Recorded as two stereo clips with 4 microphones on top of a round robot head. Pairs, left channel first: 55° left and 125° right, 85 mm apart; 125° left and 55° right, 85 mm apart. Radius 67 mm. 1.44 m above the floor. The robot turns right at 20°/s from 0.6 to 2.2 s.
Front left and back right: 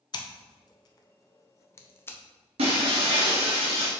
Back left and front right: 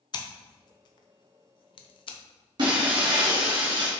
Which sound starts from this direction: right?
Breaking glass, at 2.6 s.